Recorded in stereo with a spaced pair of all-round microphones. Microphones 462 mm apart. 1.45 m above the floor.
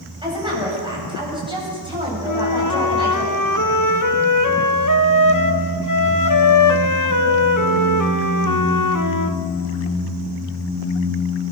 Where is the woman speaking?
10° right (ahead or behind), 8.5 m.